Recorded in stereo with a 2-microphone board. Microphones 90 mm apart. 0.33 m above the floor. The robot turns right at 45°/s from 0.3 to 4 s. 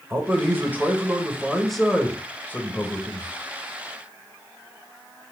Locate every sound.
0.1 s a man speaking: 25° right (ahead or behind), 1.2 m; by 3.3 s 30° left (ahead or behind), 1.2 m